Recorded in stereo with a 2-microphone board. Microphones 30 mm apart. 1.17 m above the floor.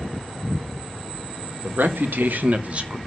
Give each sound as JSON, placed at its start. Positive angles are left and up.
{"t": 1.6, "sound": "a man speaking", "side_deg": -80, "distance_m": 1.6}